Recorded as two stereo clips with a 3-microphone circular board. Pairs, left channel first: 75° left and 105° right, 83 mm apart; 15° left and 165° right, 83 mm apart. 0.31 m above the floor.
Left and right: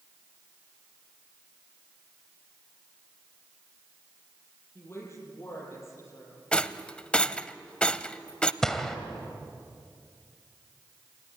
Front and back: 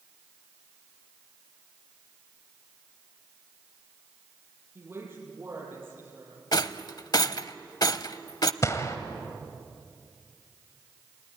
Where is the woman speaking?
135° left, 8 m; by 6.4 s 130° left, 9 m.